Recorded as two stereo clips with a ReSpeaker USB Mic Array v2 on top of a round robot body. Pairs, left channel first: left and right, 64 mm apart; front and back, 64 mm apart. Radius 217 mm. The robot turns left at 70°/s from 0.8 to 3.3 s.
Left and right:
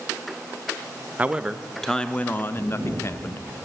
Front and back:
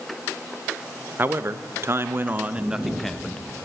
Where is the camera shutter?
125° left, 5 m; by 3.0 s 95° left, 5 m.